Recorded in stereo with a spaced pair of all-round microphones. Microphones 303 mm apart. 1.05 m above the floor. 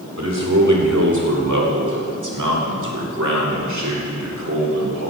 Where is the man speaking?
60° right (ahead or behind), 2.5 m; by 5.1 s 55° right (ahead or behind), 3 m.